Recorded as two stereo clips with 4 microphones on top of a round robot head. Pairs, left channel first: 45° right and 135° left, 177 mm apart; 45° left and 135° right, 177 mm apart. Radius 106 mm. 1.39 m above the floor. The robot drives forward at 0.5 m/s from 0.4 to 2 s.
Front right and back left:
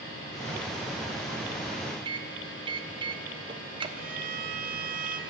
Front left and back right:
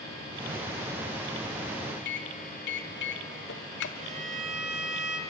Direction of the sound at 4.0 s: 175° left.